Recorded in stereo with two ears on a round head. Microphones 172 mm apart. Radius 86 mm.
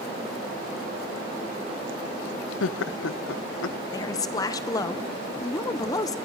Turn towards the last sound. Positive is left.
turn(degrees=20)  # may be behind; listen again after turning